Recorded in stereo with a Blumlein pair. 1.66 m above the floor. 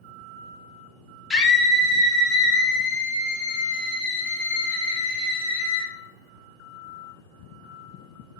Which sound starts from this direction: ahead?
A scream, at 1.3 s.